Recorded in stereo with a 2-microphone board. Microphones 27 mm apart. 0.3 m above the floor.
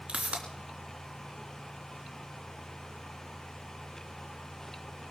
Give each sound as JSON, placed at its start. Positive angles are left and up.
{"t": 0.1, "sound": "a pop", "side_deg": -50, "distance_m": 3.5}